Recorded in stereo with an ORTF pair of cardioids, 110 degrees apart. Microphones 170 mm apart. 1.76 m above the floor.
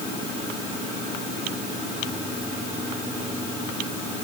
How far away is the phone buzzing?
I don't hear a phone buzzing.